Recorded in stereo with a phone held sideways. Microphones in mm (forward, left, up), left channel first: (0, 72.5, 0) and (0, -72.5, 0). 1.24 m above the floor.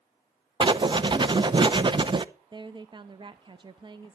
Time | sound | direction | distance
0.6 | writing | 35° right (ahead or behind) | 0.6 m
2.5 | a woman speaking | 35° right (ahead or behind) | 0.6 m